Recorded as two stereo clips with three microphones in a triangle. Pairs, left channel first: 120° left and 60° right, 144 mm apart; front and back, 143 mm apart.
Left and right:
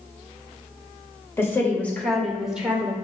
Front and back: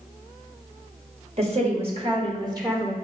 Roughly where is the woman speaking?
Behind.